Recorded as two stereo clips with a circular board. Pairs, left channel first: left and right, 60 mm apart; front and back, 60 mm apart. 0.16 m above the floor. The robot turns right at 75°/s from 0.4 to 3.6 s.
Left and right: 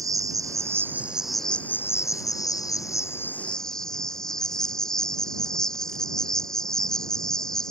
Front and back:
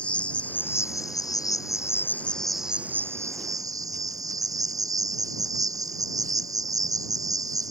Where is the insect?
70° right; by 7.7 s 170° left.